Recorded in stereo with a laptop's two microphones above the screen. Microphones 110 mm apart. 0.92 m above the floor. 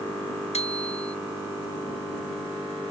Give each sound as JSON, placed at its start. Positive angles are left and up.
{"t": 0.5, "sound": "a bicycle bell", "side_deg": 75}